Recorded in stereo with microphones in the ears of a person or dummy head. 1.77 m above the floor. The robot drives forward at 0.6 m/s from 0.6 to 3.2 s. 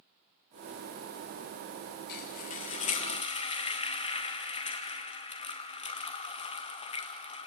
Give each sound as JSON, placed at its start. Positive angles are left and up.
{"t": 2.1, "sound": "frying", "side_deg": 40, "distance_m": 1.1}